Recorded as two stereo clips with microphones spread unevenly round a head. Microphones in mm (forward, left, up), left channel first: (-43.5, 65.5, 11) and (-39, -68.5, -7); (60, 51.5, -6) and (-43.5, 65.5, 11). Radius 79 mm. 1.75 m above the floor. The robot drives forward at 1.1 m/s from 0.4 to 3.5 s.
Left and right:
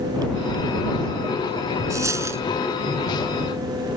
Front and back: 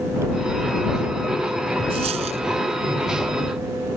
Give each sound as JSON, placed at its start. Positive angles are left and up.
{"t": 1.9, "sound": "a dropped coin", "azimuth_deg": -160}